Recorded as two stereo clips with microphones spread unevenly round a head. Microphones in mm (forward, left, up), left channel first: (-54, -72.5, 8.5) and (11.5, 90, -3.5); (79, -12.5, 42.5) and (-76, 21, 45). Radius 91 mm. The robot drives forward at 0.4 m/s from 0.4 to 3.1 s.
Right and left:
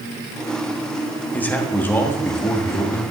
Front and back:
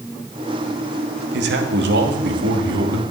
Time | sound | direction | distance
1.3 | a man speaking | 165° left | 1.3 m